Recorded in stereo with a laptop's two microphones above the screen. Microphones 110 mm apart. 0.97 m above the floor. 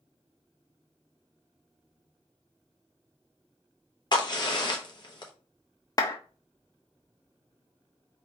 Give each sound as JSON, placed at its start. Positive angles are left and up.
{"t": 4.1, "sound": "a crack", "side_deg": 40, "distance_m": 0.9}
{"t": 6.0, "sound": "a clap", "side_deg": 35, "distance_m": 1.2}